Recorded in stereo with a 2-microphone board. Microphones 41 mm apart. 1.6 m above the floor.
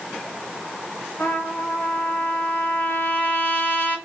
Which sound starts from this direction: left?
A trumpet, at 1.2 s.